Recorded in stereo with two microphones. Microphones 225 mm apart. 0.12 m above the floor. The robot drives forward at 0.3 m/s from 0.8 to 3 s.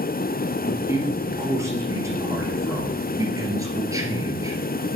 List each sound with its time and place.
0.7 s a man speaking: 10° right (ahead or behind), 2.5 m; by 4.6 s 15° right (ahead or behind), 2 m